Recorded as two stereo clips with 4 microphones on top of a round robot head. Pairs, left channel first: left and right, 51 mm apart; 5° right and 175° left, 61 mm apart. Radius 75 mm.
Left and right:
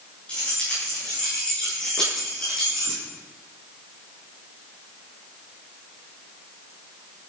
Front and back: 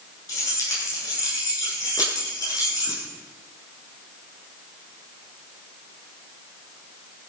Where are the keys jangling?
20° left, 9 m; by 3.0 s 10° left, 9.5 m.